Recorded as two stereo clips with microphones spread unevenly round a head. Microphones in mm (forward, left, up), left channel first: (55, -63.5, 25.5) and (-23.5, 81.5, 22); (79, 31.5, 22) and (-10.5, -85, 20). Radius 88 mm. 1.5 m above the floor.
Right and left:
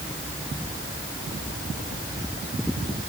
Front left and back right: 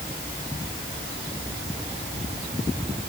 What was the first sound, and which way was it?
Only background noise.